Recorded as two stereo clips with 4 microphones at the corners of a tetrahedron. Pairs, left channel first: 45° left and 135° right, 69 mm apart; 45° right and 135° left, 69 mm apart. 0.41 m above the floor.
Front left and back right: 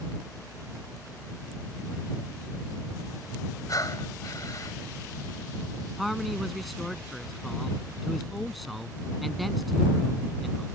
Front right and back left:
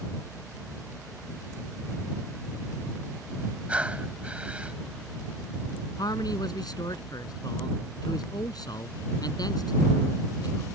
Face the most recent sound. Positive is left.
turn(degrees=-45)